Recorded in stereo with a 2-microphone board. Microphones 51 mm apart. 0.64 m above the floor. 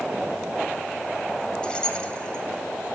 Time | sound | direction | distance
1.6 | keys jangling | 20° left (ahead or behind) | 2.5 m